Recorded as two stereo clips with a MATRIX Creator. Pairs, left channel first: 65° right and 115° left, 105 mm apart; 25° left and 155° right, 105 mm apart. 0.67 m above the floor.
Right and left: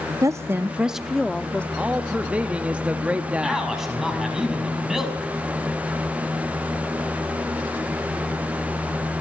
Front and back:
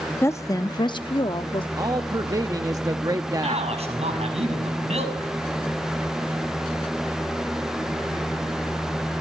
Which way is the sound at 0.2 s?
75° left.